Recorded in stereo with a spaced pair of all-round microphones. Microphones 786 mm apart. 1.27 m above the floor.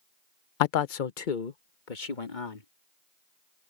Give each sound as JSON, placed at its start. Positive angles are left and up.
{"t": 0.6, "sound": "a man speaking", "side_deg": 80}